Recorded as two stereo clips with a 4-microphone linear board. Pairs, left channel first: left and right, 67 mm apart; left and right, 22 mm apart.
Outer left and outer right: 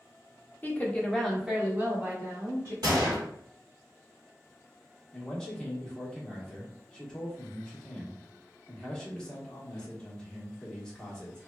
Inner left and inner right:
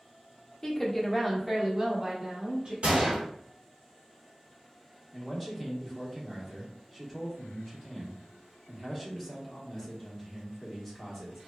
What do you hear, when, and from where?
0.6 s a woman speaking: 30° left (ahead or behind), 0.7 m; by 2.7 s 45° right (ahead or behind), 1.1 m
2.8 s a gunshot: 80° right, 1.4 m
5.1 s a man speaking: 10° left (ahead or behind), 0.8 m